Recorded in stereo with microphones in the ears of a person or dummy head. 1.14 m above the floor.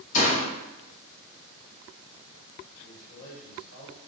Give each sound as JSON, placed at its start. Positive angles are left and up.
{"t": 0.1, "sound": "a door slam", "side_deg": 35, "distance_m": 0.7}
{"t": 2.8, "sound": "a man speaking", "side_deg": 70, "distance_m": 1.5}